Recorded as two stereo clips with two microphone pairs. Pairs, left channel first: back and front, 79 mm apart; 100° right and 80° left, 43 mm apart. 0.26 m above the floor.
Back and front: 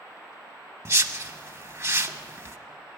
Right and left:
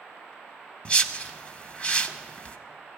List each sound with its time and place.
0.8 s a whoosh: 45° right, 0.7 m